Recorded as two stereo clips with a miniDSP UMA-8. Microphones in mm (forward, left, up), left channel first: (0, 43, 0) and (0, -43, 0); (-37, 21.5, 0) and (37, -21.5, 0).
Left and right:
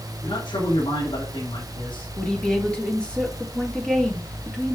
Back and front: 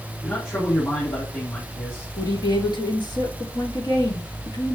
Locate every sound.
0.2 s a man speaking: 85° left, 7.5 m
2.2 s a woman speaking: 170° left, 4 m